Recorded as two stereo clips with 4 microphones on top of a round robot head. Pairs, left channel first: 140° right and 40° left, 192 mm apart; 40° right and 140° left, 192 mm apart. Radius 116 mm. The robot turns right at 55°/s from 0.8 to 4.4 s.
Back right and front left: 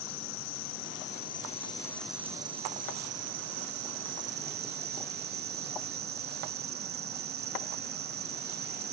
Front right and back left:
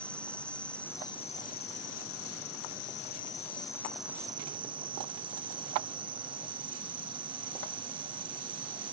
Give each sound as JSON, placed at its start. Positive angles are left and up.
{"t": 0.0, "sound": "an insect", "azimuth_deg": -120}